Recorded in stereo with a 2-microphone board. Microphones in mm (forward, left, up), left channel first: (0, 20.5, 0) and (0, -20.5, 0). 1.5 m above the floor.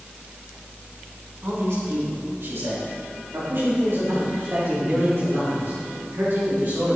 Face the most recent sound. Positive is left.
turn(degrees=-55)  # may be behind; listen again after turning